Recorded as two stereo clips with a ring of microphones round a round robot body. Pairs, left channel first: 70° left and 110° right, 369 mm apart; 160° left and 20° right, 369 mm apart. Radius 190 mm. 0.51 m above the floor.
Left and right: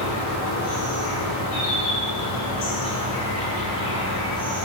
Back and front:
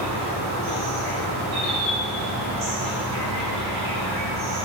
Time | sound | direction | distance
0.0 | an insect | 15° left | 1.0 m